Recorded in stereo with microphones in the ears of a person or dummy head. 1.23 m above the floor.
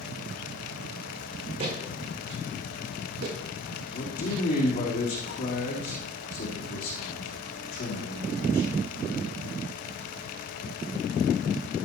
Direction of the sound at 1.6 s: 45° right (ahead or behind).